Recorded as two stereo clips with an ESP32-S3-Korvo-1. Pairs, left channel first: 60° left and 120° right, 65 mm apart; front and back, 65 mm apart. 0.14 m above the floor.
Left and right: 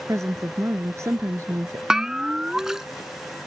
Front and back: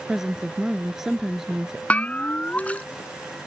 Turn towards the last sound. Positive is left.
turn(degrees=-45)